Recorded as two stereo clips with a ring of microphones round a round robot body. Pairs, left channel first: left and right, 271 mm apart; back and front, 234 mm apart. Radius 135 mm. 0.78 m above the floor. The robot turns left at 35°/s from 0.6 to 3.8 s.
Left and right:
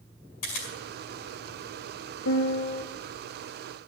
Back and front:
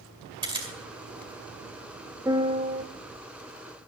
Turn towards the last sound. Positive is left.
turn(degrees=20)